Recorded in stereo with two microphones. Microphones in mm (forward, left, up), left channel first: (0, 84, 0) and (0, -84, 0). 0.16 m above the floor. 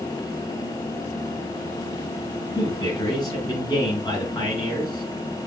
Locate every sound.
2.5 s a man speaking: 25° left (ahead or behind), 1.6 m